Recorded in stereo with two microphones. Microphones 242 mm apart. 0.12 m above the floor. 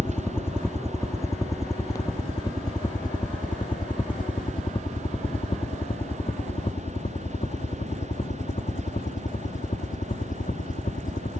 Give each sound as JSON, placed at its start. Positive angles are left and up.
{"t": 0.0, "sound": "a helicopter", "side_deg": 10}